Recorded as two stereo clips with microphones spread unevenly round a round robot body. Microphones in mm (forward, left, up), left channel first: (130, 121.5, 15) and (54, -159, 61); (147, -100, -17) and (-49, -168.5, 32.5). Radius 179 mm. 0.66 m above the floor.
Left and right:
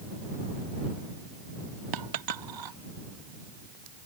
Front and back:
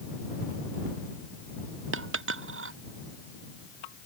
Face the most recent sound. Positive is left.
turn(degrees=-140)